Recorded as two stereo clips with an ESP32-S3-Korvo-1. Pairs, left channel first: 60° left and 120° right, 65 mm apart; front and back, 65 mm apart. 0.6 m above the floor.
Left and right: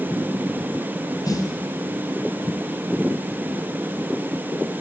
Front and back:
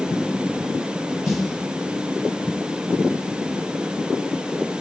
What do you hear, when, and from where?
1.2 s a snare drum: 90° left, 4 m